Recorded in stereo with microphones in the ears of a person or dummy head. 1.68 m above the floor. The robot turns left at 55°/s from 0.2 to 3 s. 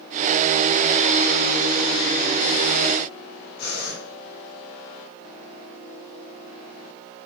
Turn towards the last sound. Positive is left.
turn(degrees=60)  # may be behind; listen again after turning